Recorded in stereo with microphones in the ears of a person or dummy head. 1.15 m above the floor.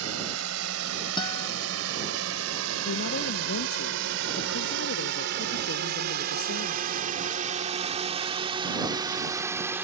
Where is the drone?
85° right; by 9.8 s 10° right (ahead or behind).